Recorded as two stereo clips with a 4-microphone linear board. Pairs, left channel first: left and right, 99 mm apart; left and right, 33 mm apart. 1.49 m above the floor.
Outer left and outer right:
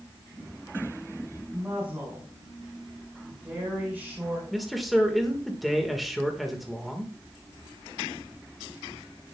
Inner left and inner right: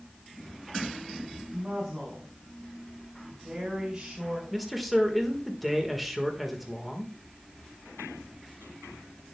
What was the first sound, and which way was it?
A woman speaking, 10° right (ahead or behind).